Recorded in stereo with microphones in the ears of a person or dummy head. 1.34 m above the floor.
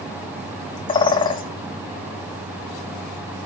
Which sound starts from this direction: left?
A bird, at 0.9 s.